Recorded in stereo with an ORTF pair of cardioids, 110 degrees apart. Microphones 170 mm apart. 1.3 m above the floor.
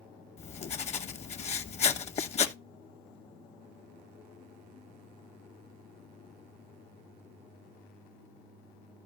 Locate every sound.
0.4 s writing: 40° left, 0.9 m